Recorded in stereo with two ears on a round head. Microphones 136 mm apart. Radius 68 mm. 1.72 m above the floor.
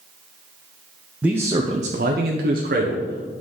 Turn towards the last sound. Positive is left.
turn(degrees=-55)  # may be behind; listen again after turning